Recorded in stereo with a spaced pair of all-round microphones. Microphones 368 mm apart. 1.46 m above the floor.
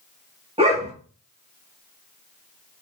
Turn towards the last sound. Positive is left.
turn(degrees=-15)  # may be behind; listen again after turning